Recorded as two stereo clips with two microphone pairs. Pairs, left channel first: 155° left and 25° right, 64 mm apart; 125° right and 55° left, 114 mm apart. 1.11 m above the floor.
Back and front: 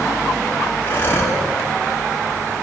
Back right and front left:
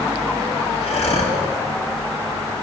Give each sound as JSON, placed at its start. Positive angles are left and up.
{"t": 0.8, "sound": "breathing", "azimuth_deg": -150, "distance_m": 3.0}